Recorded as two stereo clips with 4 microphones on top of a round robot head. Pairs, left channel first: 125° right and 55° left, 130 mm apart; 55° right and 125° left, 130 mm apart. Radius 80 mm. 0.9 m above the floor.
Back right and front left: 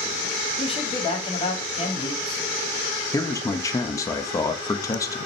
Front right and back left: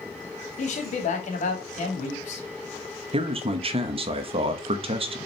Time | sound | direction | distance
0.6 | a man speaking | 80° right | 2.5 m
3.1 | a man speaking | 170° left | 1.1 m